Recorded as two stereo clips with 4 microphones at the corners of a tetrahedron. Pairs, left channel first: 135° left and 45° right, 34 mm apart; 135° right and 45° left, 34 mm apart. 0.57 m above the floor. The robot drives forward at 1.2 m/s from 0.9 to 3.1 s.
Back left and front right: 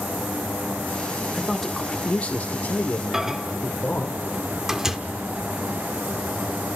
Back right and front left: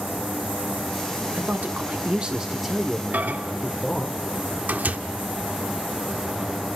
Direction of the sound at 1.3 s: 40° left.